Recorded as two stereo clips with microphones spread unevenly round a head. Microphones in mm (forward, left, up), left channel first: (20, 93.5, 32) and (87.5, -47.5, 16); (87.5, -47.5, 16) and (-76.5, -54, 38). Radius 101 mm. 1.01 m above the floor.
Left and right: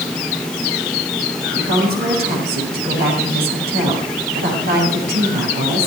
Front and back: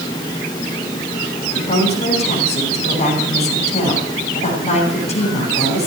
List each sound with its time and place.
1.5 s a woman speaking: 50° right, 7.5 m